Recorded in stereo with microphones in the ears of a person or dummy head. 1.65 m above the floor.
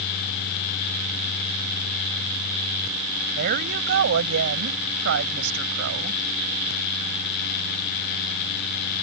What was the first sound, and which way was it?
A woman speaking, 65° right (ahead or behind).